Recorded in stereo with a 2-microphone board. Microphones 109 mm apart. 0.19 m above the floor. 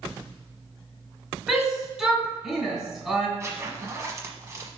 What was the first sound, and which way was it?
A shout, 10° right (ahead or behind).